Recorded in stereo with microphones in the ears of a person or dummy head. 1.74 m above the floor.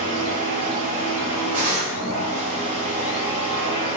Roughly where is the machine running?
Right.